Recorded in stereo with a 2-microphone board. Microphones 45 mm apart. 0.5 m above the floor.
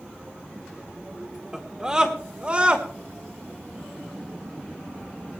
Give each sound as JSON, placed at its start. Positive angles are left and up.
{"t": 1.5, "sound": "a scream", "side_deg": -10, "distance_m": 1.5}